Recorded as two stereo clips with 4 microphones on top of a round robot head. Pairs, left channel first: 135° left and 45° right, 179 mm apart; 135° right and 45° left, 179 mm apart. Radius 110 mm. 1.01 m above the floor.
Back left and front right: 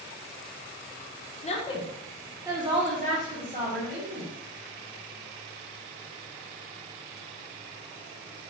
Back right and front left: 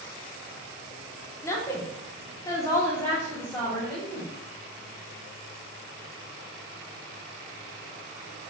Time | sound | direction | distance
1.4 | a woman speaking | 155° left | 0.8 m